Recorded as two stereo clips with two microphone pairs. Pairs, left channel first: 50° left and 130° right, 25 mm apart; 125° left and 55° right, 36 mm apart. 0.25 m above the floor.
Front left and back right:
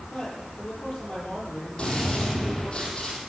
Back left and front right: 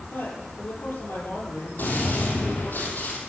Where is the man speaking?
115° left, 8 m.